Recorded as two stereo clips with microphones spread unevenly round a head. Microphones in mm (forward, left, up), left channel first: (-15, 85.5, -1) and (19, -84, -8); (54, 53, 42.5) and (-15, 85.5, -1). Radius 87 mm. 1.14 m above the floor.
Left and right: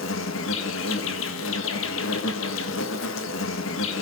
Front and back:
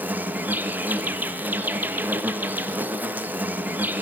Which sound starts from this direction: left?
An insect, at 0.0 s.